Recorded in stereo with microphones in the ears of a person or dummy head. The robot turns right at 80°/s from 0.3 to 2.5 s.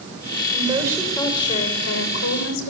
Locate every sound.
0.5 s a woman speaking: 45° right, 6.5 m; by 2.7 s 115° left, 6.5 m